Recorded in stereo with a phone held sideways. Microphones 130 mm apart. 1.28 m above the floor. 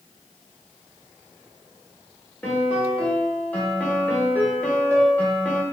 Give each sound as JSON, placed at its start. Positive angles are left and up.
{"t": 2.4, "sound": "a piano", "side_deg": 10, "distance_m": 1.3}